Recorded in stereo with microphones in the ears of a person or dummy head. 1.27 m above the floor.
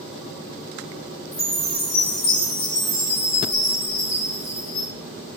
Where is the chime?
65° left (ahead or behind), 1.4 m.